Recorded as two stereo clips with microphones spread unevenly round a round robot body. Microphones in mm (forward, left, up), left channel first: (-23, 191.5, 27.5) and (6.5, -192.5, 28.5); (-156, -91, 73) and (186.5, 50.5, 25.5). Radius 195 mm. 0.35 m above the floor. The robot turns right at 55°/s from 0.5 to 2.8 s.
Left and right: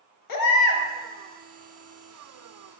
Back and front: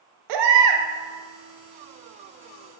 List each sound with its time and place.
0.3 s a baby crying: 50° left, 0.6 m; by 0.8 s 70° left, 0.6 m